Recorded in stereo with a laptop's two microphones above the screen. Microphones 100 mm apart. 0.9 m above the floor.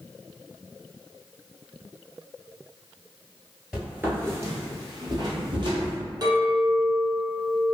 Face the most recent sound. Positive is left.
turn(degrees=-45)  # may be behind; listen again after turning